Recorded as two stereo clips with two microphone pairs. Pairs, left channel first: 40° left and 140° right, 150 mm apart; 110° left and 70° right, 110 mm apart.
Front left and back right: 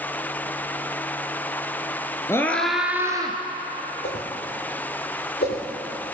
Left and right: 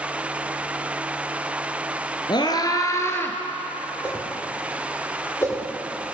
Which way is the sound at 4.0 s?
40° left.